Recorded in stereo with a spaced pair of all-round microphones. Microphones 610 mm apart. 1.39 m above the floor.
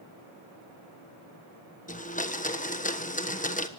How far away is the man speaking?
No man speaking in this recording.